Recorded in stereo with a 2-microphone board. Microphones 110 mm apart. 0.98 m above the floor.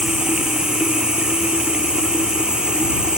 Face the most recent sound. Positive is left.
turn(degrees=-10)  # may be behind; listen again after turning